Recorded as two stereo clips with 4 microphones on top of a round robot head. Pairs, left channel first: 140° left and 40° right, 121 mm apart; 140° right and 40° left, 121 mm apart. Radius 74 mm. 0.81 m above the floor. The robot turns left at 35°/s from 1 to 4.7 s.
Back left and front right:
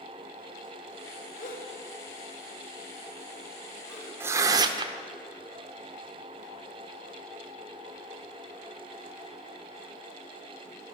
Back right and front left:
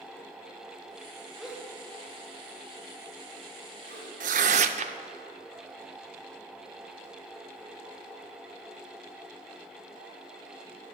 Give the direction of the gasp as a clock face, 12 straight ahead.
8 o'clock.